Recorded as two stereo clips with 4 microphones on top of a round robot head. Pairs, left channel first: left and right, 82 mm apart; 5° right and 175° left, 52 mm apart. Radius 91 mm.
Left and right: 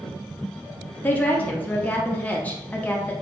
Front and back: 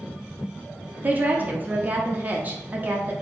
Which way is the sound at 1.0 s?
145° left.